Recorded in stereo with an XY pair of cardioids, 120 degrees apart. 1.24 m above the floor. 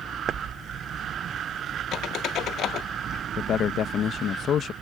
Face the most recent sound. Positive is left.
turn(degrees=55)